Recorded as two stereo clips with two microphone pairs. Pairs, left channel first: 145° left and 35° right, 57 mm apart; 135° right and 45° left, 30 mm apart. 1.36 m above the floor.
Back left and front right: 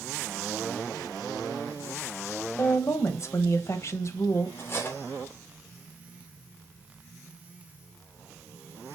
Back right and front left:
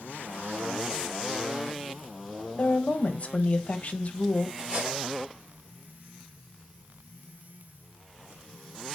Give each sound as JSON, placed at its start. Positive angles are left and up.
{"t": 2.6, "sound": "a woman speaking", "azimuth_deg": 180, "distance_m": 1.1}
{"t": 4.6, "sound": "cutlery clinking", "azimuth_deg": 95, "distance_m": 3.0}